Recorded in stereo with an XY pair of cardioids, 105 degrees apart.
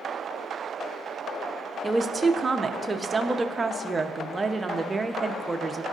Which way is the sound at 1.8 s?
25° right.